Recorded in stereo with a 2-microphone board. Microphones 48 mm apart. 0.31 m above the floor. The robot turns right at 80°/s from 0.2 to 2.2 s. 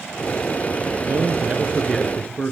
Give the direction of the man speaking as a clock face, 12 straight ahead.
2 o'clock.